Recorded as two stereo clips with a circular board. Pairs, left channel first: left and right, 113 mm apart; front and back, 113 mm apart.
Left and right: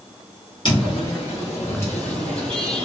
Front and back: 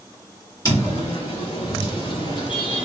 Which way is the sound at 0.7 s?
50° left.